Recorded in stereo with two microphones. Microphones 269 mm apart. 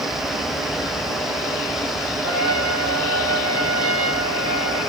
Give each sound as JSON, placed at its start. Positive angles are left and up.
{"t": 2.2, "sound": "a trumpet", "side_deg": -55, "distance_m": 6.5}